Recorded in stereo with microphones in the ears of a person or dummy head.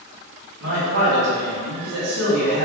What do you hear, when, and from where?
0.6 s a man speaking: 70° right (ahead or behind), 1.8 m